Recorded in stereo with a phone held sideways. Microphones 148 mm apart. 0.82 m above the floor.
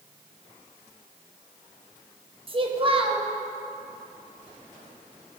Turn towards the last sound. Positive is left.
turn(degrees=-35)  # may be behind; listen again after turning